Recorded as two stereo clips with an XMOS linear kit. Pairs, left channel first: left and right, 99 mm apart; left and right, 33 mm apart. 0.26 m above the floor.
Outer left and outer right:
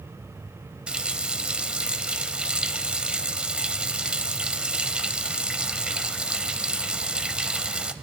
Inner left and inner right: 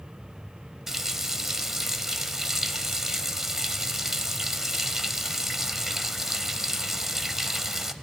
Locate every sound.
0.9 s a running tap: 10° right (ahead or behind), 0.7 m